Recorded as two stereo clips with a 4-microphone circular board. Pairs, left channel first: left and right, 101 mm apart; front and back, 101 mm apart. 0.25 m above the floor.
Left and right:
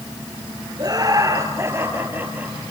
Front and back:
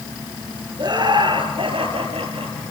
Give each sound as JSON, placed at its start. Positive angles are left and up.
{"t": 0.8, "sound": "laughter", "azimuth_deg": -140, "distance_m": 4.0}